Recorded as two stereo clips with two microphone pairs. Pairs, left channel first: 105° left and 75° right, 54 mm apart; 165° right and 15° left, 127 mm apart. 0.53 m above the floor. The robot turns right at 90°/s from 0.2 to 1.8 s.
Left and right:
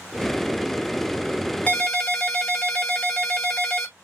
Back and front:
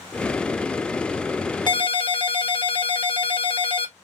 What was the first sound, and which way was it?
A ringtone, 165° left.